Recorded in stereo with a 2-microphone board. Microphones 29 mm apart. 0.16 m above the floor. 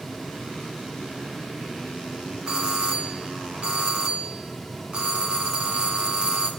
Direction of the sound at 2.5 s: 30° right (ahead or behind).